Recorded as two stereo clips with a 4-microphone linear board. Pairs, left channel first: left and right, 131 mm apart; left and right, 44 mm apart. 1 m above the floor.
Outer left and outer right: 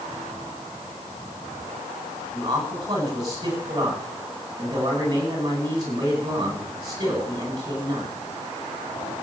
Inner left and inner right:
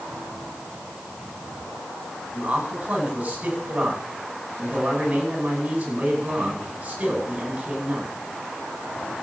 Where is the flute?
No flute in this recording.